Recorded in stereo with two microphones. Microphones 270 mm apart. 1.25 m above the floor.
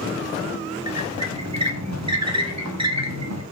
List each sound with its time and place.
0.9 s a squeak: 70° right (ahead or behind), 1.3 m